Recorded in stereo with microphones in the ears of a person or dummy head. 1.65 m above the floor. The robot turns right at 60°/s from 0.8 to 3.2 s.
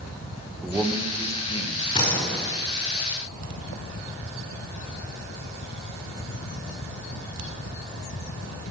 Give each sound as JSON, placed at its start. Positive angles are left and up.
{"t": 0.6, "sound": "a man speaking", "azimuth_deg": -10, "distance_m": 1.7}
{"t": 1.9, "sound": "a door slam", "azimuth_deg": 150, "distance_m": 4.5}